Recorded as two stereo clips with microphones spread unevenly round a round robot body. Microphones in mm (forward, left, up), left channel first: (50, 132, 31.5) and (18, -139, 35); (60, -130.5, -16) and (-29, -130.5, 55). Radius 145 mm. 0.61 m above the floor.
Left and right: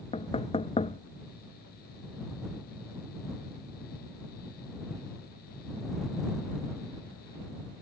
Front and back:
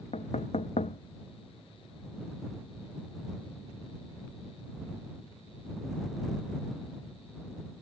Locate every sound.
0.1 s knocking: 15° left